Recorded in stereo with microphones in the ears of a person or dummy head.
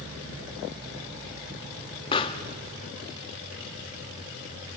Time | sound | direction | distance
2.1 | a pop | 30° left (ahead or behind) | 1.0 m